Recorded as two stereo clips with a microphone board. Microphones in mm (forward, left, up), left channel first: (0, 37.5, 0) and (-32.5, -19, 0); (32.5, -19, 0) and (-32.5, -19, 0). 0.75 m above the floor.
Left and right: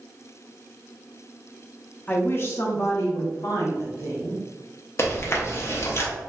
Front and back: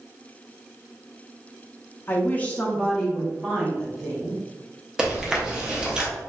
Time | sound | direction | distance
2.1 | a woman speaking | 20° left | 0.5 m
5.0 | chewing | 100° left | 0.6 m